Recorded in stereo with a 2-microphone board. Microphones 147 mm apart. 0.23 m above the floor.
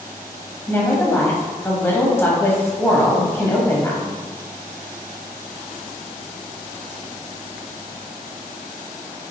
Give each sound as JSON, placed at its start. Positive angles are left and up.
{"t": 0.7, "sound": "a woman speaking", "side_deg": 15, "distance_m": 1.0}